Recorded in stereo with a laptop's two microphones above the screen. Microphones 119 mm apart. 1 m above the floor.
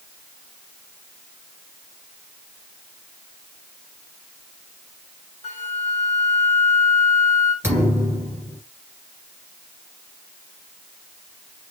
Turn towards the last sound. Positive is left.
turn(degrees=-20)  # may be behind; listen again after turning